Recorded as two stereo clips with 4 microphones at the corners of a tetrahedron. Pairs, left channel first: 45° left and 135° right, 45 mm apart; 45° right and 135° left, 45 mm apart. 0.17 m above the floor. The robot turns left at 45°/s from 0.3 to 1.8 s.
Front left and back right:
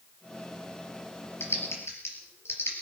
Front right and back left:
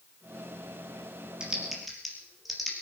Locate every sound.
1.4 s typing on a keyboard: 65° left, 4 m; by 2.7 s 45° left, 4 m